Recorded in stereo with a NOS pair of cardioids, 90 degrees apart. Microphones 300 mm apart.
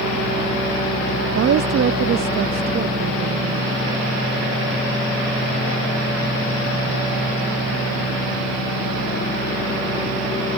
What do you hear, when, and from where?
1.4 s a woman speaking: 50° right